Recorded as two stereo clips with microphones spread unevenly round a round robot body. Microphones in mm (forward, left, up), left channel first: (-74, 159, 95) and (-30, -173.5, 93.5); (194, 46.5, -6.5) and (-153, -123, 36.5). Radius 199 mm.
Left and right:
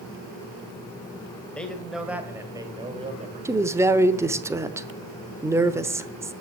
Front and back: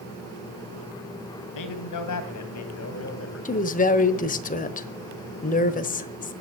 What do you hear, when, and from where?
1.6 s a man speaking: 10° left, 2.5 m; by 3.5 s 20° right, 2 m
3.5 s a woman speaking: 5° right, 1.0 m